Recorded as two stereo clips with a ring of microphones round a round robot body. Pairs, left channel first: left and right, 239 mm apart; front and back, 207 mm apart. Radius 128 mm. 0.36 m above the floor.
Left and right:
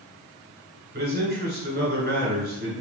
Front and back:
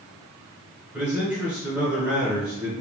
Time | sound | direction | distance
0.9 | a man speaking | 100° right | 1.7 m